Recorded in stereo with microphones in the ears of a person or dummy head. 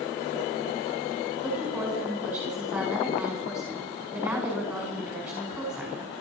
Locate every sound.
1.4 s a woman speaking: 5° right (ahead or behind), 5.5 m